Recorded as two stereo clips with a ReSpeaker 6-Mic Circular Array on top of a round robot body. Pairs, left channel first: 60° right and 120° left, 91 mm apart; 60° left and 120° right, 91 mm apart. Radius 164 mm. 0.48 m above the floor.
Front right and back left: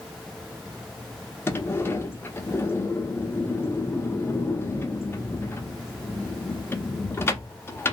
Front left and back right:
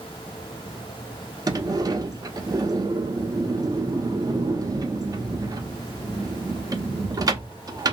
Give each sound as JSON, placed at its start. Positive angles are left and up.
{"t": 1.5, "sound": "a sliding door", "azimuth_deg": -110, "distance_m": 0.7}